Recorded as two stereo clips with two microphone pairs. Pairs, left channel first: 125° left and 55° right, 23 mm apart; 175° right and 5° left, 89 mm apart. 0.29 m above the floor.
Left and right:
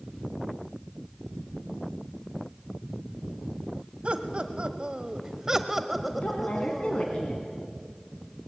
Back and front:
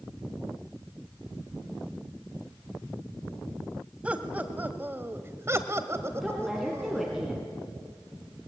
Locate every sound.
4.0 s laughter: 70° right, 1.7 m; by 7.2 s 55° left, 1.8 m
6.2 s a woman speaking: 90° left, 2.5 m